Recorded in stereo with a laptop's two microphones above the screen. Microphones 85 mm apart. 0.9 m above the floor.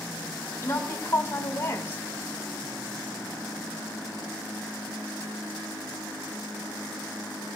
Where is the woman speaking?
30° left (ahead or behind), 3 m.